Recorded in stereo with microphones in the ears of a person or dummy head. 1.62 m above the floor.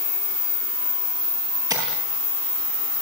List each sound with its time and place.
1.7 s tapping: 20° right (ahead or behind), 9 m